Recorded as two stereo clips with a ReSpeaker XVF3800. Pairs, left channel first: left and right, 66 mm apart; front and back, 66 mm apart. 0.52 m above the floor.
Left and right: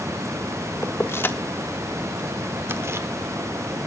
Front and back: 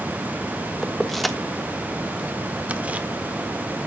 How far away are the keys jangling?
About 1.0 m.